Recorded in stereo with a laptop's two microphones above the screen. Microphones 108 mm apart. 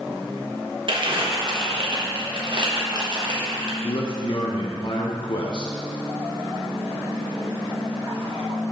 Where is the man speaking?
50° left (ahead or behind), 0.8 m.